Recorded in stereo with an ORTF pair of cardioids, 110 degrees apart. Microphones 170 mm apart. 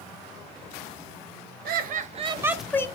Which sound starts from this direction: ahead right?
Laughter, at 1.6 s.